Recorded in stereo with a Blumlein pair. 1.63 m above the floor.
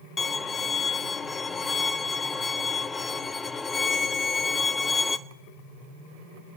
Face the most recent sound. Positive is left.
turn(degrees=15)